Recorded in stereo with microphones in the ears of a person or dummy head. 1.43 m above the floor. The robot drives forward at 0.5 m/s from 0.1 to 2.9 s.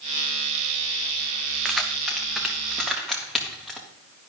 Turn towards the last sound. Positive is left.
turn(degrees=5)  # may be behind; listen again after turning